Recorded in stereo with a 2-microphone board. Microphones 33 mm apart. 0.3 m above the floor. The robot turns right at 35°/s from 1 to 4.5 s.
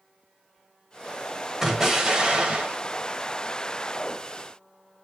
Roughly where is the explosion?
Behind.